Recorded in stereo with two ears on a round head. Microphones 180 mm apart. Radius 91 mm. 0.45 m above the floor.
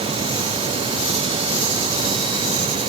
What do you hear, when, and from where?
Only background noise.